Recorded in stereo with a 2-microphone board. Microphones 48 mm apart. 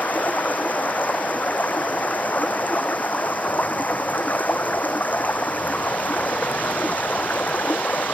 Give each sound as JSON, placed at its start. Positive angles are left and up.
{"t": 0.0, "sound": "running water", "side_deg": 35}